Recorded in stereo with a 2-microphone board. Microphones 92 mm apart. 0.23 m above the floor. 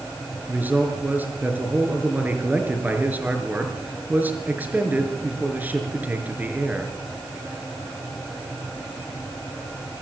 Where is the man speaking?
20° right (ahead or behind), 4.5 m.